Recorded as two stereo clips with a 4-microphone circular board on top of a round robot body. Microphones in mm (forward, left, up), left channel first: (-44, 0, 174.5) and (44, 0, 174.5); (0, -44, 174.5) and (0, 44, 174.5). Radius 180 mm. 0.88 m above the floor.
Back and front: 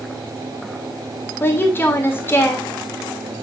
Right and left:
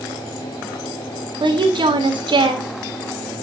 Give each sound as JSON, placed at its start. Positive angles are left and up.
{"t": 1.4, "sound": "a woman speaking", "azimuth_deg": 115, "distance_m": 2.5}